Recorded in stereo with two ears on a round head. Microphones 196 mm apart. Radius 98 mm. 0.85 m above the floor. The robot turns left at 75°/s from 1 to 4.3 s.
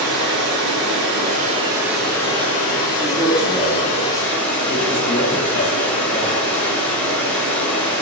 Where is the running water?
105° right, 1.3 m; by 8.0 s 10° left, 1.3 m.